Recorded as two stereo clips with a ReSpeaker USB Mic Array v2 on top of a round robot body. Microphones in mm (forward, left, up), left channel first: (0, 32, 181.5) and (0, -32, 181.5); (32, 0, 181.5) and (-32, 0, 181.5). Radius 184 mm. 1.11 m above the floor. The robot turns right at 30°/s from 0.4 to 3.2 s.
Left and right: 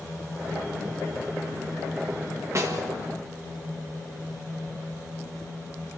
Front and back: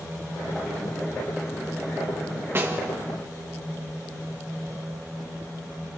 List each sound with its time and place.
2.5 s a snare drum: 130° right, 2 m; by 2.9 s 115° right, 2 m